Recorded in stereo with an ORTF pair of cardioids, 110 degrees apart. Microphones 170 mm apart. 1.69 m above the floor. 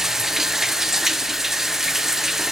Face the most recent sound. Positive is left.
turn(degrees=0)